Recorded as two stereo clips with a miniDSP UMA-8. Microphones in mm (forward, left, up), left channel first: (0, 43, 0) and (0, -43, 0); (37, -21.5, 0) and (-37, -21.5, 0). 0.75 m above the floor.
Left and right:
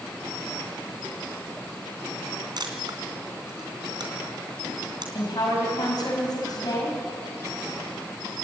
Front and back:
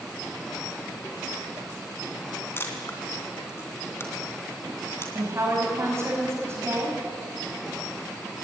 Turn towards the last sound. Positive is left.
turn(degrees=125)